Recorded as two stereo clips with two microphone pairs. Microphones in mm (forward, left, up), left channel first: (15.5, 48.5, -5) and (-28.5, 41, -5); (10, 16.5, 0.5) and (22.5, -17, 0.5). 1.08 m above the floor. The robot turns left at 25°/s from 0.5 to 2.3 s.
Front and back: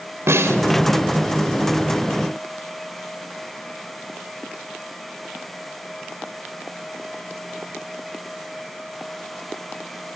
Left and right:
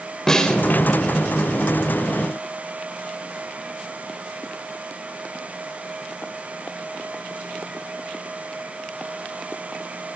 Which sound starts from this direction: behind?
A snare drum, at 0.3 s.